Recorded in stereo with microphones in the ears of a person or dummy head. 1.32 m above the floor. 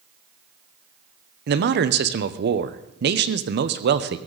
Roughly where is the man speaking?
Right.